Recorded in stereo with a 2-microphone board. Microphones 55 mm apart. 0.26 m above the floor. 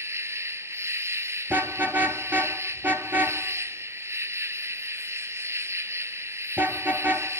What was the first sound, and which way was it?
An insect, 60° right (ahead or behind).